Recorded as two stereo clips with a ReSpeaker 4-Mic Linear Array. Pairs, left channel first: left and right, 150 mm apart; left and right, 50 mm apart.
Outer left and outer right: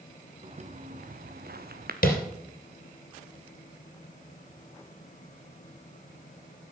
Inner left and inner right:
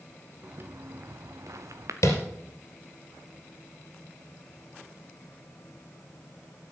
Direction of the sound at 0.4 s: 45° right (ahead or behind).